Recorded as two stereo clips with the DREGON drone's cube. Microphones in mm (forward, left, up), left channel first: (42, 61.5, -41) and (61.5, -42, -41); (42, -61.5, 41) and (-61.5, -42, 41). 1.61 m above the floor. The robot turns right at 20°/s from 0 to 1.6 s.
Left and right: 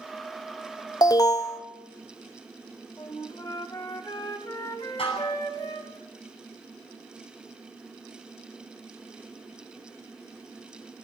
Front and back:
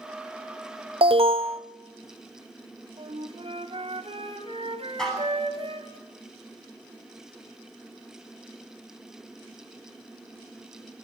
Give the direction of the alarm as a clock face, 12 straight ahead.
7 o'clock.